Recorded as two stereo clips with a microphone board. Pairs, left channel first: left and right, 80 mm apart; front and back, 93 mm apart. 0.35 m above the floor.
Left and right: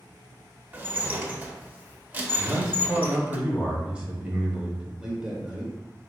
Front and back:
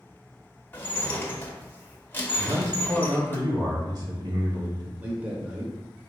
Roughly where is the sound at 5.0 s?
Behind right.